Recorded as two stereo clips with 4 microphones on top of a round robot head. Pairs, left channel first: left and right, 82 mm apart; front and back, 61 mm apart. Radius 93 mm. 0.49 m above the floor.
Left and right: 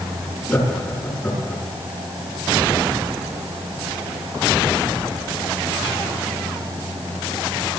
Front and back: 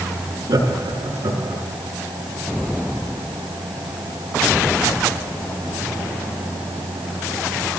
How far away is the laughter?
About 7 m.